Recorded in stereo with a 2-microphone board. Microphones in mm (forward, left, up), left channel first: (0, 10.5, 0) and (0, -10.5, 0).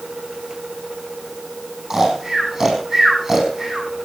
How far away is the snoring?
About 5 m.